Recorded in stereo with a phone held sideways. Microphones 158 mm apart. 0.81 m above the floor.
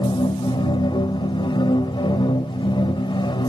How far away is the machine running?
About 0.7 m.